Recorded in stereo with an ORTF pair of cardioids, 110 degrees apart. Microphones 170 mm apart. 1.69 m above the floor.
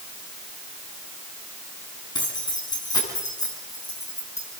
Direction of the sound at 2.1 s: 25° left.